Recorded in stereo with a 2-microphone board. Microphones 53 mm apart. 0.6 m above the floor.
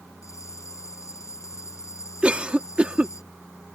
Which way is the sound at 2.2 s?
25° right (ahead or behind).